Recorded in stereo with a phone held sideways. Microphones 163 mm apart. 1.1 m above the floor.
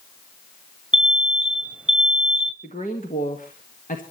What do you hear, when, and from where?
0.9 s an alarm: 5° right (ahead or behind), 1.3 m
2.6 s a woman speaking: 55° left (ahead or behind), 1.8 m